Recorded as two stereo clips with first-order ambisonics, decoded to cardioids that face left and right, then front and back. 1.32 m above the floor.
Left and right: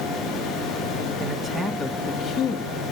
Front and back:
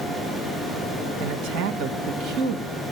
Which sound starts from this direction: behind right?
A man speaking, at 1.2 s.